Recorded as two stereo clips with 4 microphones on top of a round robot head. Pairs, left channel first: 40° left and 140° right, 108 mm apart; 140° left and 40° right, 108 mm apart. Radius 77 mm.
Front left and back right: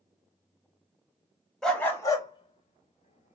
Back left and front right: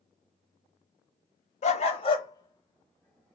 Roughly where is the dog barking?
Behind left.